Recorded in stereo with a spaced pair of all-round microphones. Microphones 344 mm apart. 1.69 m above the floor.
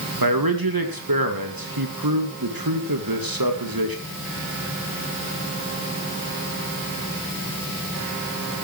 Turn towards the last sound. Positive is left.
turn(degrees=-80)